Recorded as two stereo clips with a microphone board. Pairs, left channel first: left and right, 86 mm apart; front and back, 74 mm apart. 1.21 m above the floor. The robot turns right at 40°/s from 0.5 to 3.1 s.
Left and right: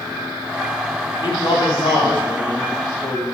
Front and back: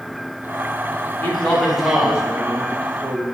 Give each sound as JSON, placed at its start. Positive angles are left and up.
{"t": 1.2, "sound": "a man speaking", "azimuth_deg": 70, "distance_m": 1.6}